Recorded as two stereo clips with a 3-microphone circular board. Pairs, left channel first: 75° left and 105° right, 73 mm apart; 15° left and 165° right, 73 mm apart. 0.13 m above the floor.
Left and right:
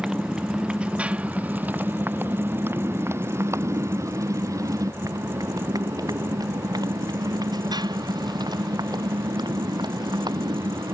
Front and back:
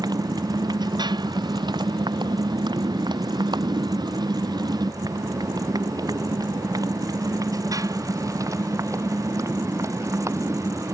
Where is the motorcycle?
175° left; by 10.9 s 115° right.